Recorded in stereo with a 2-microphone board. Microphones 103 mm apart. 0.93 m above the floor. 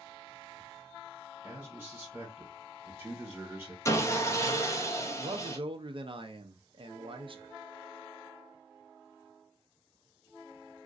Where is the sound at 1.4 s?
25° right (ahead or behind), 1.4 m.